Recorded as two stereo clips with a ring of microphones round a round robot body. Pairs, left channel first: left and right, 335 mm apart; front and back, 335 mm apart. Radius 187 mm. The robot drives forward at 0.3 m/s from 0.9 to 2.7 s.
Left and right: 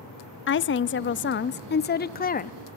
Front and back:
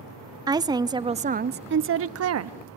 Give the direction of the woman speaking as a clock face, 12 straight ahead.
8 o'clock.